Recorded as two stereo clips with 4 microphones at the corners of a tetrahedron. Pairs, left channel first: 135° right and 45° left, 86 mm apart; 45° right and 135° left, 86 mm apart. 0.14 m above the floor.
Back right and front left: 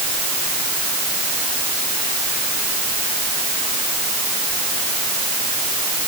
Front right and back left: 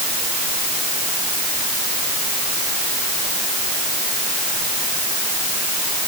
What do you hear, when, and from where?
Only background noise.